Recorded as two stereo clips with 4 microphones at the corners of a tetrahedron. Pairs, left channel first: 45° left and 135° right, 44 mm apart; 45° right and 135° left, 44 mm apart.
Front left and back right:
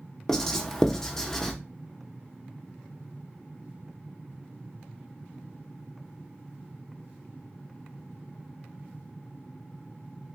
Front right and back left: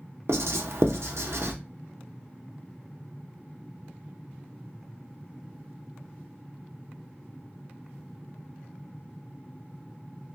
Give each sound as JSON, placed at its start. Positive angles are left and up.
{"t": 0.3, "sound": "writing", "azimuth_deg": 125, "distance_m": 0.6}